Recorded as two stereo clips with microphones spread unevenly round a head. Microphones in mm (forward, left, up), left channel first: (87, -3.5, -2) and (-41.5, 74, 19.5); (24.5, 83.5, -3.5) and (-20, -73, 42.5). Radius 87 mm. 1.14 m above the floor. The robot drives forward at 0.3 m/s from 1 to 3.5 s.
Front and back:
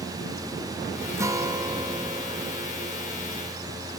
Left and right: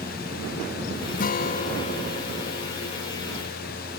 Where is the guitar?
75° left, 1.2 m; by 3.1 s 105° left, 1.2 m.